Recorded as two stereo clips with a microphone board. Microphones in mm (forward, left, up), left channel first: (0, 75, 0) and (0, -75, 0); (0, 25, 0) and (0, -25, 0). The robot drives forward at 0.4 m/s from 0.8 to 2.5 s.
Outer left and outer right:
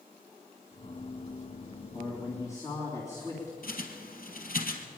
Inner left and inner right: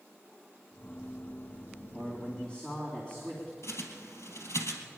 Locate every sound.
1.9 s a man speaking: 20° left (ahead or behind), 3 m
3.6 s a bird: 75° left (ahead or behind), 2.5 m